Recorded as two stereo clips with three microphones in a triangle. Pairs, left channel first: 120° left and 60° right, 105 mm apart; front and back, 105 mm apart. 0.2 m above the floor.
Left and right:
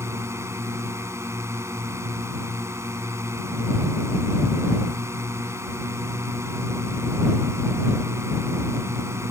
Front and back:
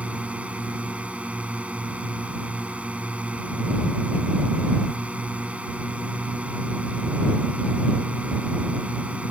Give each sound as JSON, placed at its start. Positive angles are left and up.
{"t": 0.0, "sound": "a drone", "azimuth_deg": -110}